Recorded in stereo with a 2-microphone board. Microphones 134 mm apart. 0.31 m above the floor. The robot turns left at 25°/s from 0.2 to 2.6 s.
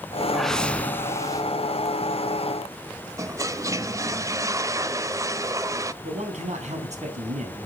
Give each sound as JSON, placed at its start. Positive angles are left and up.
{"t": 0.3, "sound": "a whoosh", "side_deg": 0, "distance_m": 0.6}
{"t": 3.2, "sound": "a toilet flushing", "side_deg": -25, "distance_m": 0.6}
{"t": 6.0, "sound": "a man speaking", "side_deg": -60, "distance_m": 3.5}